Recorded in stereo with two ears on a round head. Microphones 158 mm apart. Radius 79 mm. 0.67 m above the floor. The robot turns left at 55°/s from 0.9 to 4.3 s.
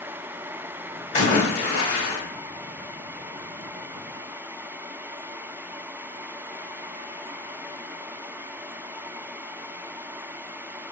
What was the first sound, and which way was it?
A splash, 145° left.